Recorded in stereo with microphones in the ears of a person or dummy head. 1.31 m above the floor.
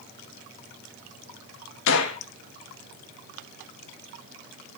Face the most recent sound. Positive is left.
turn(degrees=65)  # may be behind; listen again after turning